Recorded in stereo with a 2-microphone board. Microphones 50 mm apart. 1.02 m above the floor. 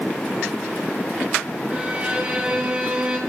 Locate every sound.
1.7 s a violin: 25° right (ahead or behind), 4.5 m